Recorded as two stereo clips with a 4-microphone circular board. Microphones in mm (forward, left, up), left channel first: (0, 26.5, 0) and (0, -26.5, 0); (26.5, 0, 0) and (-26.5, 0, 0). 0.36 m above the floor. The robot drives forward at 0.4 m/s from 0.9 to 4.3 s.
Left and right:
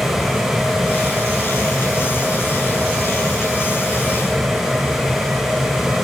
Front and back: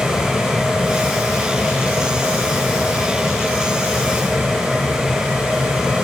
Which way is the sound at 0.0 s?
45° right.